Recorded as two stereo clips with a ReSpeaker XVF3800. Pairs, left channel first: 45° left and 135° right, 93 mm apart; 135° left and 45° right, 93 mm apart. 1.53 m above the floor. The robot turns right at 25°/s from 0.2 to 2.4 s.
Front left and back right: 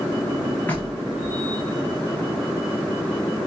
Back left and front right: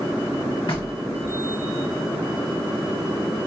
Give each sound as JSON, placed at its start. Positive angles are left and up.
{"t": 0.7, "sound": "knocking", "azimuth_deg": 115, "distance_m": 2.5}